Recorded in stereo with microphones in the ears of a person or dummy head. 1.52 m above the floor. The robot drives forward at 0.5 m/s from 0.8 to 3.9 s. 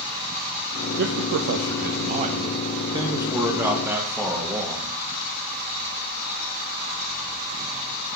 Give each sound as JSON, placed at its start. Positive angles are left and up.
{"t": 1.0, "sound": "a man speaking", "side_deg": -55, "distance_m": 0.5}